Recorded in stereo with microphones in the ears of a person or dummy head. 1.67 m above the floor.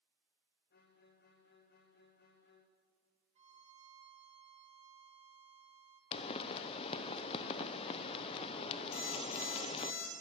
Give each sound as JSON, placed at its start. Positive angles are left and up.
{"t": 0.7, "sound": "a violin", "side_deg": 60, "distance_m": 1.1}
{"t": 3.4, "sound": "a violin", "side_deg": -30, "distance_m": 1.2}
{"t": 6.1, "sound": "a pop", "side_deg": 25, "distance_m": 0.7}
{"t": 8.9, "sound": "an alarm clock", "side_deg": 70, "distance_m": 4.0}